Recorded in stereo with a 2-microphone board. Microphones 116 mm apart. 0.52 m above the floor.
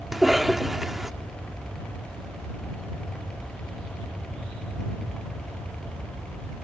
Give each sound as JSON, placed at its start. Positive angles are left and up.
{"t": 0.1, "sound": "a cough", "side_deg": -5}